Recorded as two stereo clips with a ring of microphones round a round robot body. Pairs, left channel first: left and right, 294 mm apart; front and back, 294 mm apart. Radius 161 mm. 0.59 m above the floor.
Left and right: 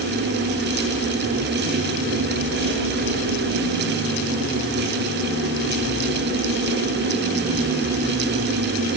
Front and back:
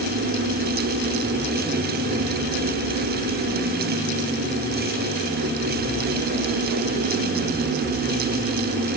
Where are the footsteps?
No footsteps in this recording.